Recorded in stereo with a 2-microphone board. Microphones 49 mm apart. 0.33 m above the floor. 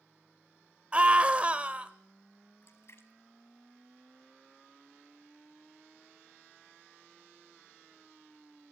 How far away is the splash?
About 1.9 m.